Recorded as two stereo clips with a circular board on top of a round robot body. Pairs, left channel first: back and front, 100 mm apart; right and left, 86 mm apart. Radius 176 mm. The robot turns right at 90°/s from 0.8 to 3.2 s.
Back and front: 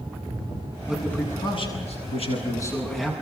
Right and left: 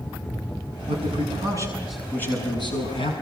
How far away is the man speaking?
About 7 m.